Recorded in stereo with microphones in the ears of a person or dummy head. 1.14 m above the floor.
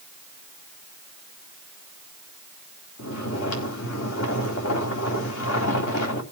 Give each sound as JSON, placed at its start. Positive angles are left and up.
{"t": 3.0, "sound": "snoring", "side_deg": 75, "distance_m": 3.0}